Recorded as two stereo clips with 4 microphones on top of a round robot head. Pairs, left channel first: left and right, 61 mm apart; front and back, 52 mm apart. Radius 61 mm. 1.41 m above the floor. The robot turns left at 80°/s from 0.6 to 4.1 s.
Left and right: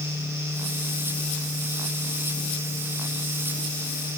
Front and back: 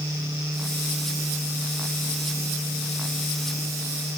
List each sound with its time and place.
Only background noise.